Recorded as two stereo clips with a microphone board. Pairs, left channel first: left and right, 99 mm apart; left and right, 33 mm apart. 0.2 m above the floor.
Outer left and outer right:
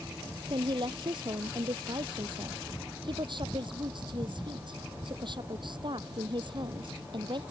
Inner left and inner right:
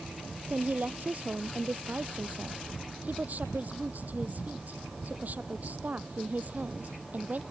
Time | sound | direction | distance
0.5 | a woman speaking | 55° right (ahead or behind) | ?